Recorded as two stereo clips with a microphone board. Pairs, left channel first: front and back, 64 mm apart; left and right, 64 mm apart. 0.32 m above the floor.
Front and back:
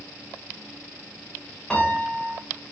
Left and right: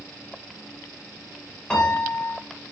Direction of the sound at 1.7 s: 50° left.